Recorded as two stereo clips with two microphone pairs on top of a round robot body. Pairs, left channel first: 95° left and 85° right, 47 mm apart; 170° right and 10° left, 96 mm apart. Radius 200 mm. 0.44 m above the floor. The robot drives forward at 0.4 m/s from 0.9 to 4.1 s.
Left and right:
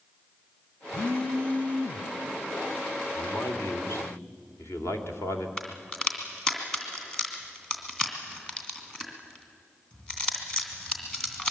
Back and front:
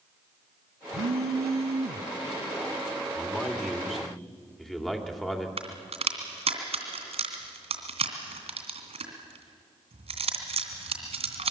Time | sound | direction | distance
0.9 | a phone buzzing | 25° left | 1.1 m
3.1 | a man speaking | 95° left | 2.5 m
5.6 | a crack | 20° left | 2.5 m